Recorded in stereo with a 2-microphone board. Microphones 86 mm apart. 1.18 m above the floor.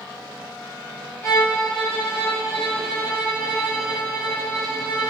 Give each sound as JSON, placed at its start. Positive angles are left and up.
{"t": 1.2, "sound": "a violin", "side_deg": 30, "distance_m": 1.4}